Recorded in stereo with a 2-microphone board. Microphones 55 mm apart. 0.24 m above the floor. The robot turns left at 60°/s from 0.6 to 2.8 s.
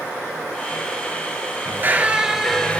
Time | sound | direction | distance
1.6 | a squeak | 135° right | 0.5 m